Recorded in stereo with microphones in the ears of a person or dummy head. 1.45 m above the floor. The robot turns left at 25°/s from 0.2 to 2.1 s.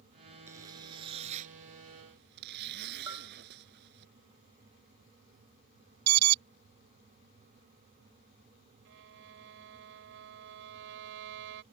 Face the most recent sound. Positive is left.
turn(degrees=-70)  # may be behind; listen again after turning